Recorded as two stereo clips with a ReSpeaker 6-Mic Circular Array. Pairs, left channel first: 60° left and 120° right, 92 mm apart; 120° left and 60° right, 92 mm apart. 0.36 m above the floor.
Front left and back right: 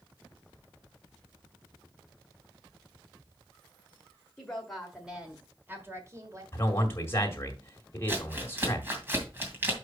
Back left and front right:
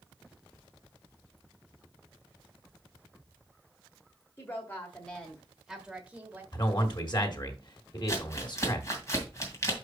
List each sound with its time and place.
4.4 s a woman speaking: 130° left, 1.5 m; by 6.4 s 120° right, 1.7 m
6.5 s a man speaking: 115° left, 1.9 m
8.1 s crumpling: 175° left, 2 m